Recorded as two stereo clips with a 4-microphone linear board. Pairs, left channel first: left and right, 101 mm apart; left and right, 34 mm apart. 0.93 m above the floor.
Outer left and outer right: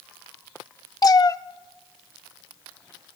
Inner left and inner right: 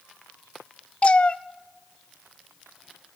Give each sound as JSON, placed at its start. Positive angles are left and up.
{"t": 1.0, "sound": "a cat meowing", "side_deg": 40, "distance_m": 0.6}